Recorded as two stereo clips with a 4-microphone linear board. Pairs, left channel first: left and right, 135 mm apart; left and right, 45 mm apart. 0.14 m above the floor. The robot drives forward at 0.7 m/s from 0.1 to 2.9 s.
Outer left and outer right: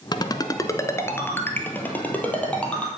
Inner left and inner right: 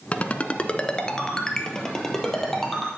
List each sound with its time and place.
0.1 s a ringtone: 30° left (ahead or behind), 0.6 m; by 2.9 s 10° left (ahead or behind), 2 m